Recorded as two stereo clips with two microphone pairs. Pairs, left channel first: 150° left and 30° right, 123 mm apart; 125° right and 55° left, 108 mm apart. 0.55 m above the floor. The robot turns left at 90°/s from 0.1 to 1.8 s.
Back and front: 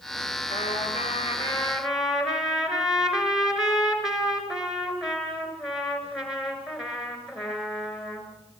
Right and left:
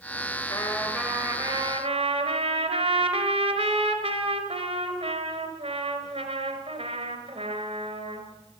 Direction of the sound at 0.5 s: 175° left.